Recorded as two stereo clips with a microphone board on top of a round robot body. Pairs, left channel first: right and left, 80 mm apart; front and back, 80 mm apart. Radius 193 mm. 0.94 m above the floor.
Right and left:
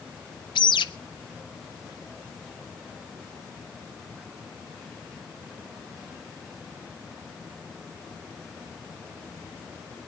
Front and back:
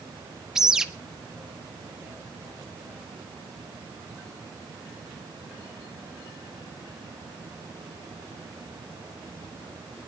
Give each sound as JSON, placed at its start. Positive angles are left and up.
{"t": 0.6, "sound": "a bird", "azimuth_deg": -95, "distance_m": 1.1}